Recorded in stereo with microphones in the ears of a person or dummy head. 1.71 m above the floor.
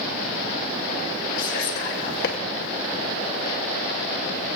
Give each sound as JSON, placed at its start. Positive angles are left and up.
{"t": 1.4, "sound": "whispering", "side_deg": 60, "distance_m": 1.7}